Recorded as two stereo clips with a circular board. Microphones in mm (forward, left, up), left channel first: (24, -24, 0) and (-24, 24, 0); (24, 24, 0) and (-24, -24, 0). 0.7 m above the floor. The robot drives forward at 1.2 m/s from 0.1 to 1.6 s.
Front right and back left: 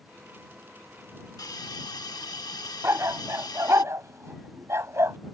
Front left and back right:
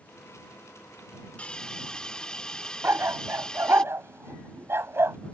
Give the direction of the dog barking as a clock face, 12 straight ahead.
6 o'clock.